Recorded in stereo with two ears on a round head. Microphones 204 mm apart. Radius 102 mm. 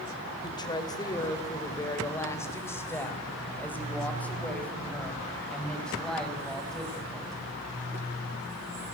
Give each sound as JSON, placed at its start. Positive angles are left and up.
{"t": 0.4, "sound": "a woman speaking", "side_deg": 20, "distance_m": 3.5}